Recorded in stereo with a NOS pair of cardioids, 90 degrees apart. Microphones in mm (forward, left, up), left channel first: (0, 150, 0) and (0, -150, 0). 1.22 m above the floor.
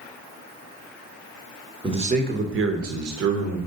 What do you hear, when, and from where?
1.8 s a man speaking: 15° right, 1.0 m; by 3.6 s 70° right, 1.4 m